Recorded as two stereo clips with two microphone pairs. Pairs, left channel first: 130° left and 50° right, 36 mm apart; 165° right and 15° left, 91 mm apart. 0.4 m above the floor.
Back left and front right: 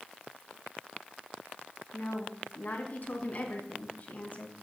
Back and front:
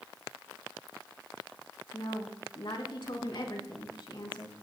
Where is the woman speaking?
170° left, 4 m.